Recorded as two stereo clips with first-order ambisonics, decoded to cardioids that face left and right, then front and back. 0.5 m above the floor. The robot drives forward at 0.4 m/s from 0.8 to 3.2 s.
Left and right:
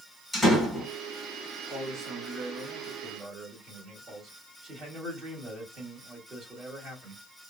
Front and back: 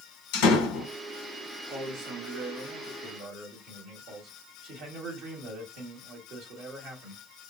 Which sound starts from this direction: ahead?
A door slam, at 0.3 s.